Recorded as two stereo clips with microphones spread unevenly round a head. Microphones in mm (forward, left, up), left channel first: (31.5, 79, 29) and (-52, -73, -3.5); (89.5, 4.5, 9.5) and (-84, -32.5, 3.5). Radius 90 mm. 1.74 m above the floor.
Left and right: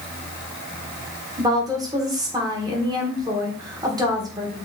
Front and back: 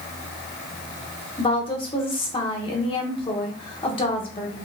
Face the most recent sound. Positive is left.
turn(degrees=-45)